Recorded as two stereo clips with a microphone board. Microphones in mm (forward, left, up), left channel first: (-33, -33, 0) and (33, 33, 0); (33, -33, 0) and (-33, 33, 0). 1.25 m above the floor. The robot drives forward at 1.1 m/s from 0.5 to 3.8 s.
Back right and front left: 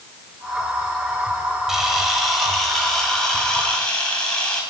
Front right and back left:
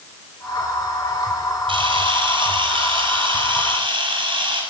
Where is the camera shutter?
130° left, 5.5 m; by 4.6 s 145° left, 7 m.